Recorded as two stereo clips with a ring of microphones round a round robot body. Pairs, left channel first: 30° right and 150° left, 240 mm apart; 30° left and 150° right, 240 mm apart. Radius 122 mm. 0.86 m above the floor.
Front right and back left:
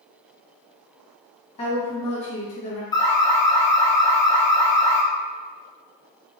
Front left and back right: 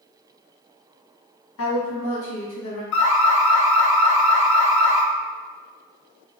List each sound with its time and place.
1.6 s a woman speaking: 30° left, 1.4 m
2.9 s an alarm: 45° left, 0.7 m